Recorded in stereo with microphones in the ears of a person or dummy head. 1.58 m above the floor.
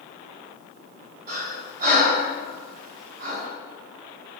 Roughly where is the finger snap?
I don't hear a finger snap.